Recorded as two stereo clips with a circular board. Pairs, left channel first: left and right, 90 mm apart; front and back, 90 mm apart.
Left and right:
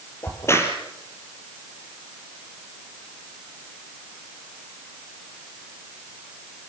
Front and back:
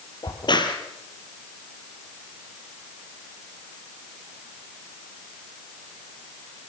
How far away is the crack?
About 4.5 m.